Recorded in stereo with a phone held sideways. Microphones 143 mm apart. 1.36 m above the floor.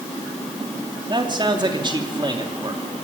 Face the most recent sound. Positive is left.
turn(degrees=-35)  # may be behind; listen again after turning